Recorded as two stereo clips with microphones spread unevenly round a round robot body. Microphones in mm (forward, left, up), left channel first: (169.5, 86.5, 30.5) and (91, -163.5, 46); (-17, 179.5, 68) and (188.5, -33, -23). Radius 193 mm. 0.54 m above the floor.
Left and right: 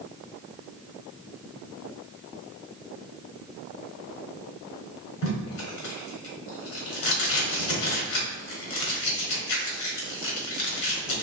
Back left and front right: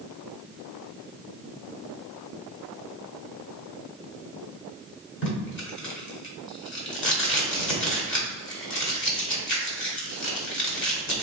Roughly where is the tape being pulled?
Left.